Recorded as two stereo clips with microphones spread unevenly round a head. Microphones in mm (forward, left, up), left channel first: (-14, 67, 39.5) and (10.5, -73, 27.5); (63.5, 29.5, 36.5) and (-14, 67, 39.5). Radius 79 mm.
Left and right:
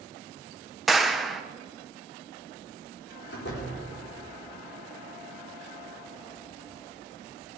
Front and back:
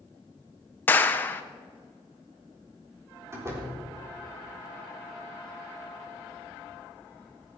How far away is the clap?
About 0.6 m.